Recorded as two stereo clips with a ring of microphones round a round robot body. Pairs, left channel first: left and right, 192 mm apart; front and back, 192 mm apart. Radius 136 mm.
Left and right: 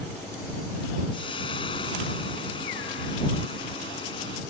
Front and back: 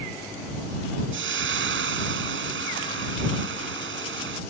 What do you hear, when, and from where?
1.1 s frying: 165° left